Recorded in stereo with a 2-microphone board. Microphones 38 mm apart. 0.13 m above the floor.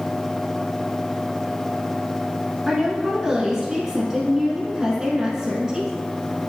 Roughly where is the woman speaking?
Centre.